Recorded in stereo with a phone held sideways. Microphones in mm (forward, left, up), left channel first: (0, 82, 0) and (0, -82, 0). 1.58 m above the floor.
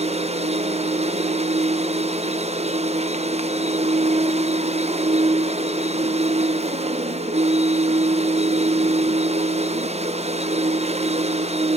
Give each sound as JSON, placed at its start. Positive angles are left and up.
{"t": 0.0, "sound": "a machine running", "side_deg": -40, "distance_m": 0.9}